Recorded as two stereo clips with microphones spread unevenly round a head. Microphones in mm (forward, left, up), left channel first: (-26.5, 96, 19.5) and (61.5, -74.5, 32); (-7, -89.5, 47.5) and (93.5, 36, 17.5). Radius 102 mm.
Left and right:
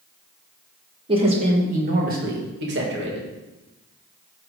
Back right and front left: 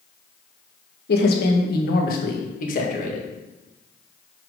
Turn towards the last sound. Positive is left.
turn(degrees=-90)